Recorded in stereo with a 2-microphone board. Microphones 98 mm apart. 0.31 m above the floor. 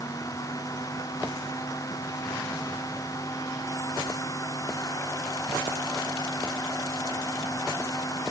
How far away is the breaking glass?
I don't hear breaking glass.